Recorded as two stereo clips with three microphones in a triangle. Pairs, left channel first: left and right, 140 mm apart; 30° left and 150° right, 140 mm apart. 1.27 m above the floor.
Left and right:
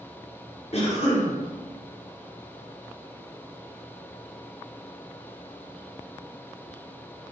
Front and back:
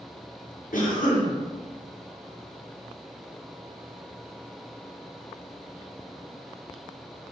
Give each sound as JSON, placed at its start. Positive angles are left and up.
{"t": 0.7, "sound": "a cough", "azimuth_deg": 50, "distance_m": 0.9}